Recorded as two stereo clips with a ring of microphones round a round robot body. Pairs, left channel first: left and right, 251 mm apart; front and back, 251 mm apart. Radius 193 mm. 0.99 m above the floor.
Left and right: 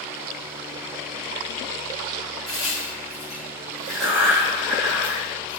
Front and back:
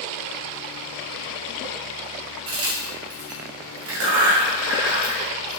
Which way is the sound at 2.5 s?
Straight behind.